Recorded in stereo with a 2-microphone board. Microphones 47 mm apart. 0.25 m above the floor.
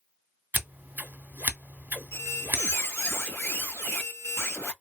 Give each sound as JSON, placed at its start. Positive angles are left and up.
{"t": 0.5, "sound": "scissors", "side_deg": -40, "distance_m": 0.7}
{"t": 2.1, "sound": "a squeak", "side_deg": 65, "distance_m": 1.4}